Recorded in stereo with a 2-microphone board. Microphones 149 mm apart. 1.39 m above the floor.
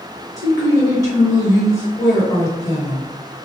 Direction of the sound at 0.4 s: 20° left (ahead or behind).